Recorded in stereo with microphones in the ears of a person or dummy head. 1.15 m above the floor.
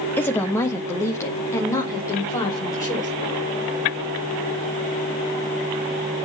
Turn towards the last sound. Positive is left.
turn(degrees=20)  # may be behind; listen again after turning